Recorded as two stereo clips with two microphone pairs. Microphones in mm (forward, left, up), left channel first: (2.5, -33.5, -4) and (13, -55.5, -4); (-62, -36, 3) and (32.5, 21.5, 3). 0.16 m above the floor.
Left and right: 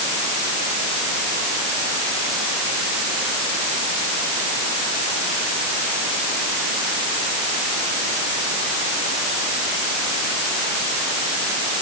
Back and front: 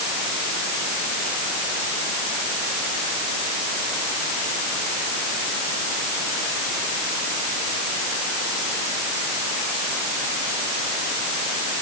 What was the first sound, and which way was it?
Only background noise.